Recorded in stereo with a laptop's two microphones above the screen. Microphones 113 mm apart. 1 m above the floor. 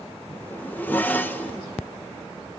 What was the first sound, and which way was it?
A zipper, 15° left (ahead or behind).